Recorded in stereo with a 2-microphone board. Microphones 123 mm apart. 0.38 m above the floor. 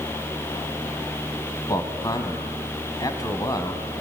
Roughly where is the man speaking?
Left.